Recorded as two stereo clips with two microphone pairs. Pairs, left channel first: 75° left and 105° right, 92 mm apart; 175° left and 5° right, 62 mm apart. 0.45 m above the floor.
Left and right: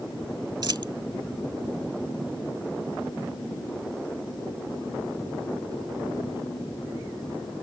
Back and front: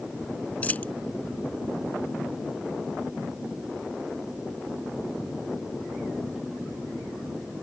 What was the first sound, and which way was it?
A dropped coin, 125° right.